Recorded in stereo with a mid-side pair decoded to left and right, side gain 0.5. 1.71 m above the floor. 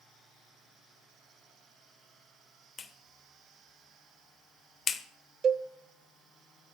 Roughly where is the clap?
Ahead left.